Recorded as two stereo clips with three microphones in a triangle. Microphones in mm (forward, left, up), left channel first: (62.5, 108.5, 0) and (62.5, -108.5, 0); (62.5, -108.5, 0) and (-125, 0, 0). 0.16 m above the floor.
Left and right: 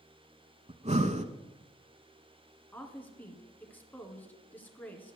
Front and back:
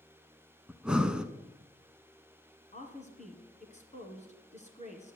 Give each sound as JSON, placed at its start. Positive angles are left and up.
{"t": 0.7, "sound": "breathing", "azimuth_deg": -125, "distance_m": 0.8}
{"t": 2.7, "sound": "a woman speaking", "azimuth_deg": 10, "distance_m": 2.0}